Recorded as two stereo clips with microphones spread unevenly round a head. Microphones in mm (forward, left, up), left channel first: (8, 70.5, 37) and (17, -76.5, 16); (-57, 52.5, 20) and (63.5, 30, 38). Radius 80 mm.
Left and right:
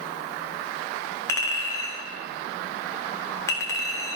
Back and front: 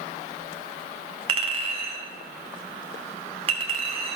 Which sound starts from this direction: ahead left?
A clink, at 1.3 s.